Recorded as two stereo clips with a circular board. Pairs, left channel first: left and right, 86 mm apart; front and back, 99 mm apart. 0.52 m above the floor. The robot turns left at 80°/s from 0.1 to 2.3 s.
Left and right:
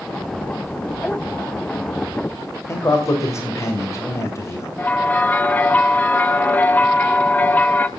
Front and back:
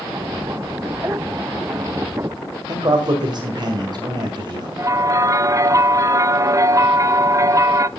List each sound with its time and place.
2.7 s a man speaking: 145° left, 2.0 m
4.8 s a bell: 150° left, 0.5 m